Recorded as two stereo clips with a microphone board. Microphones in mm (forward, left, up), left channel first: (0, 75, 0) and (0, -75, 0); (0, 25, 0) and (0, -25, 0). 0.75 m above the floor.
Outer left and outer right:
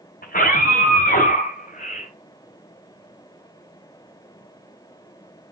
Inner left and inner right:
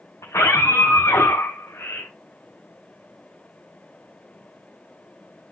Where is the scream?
85° left, 4.5 m; by 2.1 s 80° left, 2 m.